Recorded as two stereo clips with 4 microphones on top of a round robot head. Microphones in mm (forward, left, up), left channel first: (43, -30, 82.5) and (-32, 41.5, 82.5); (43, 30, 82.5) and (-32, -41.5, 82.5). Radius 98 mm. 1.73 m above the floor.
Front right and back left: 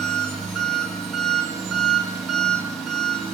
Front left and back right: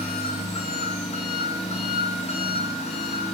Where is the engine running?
45° left, 3.5 m.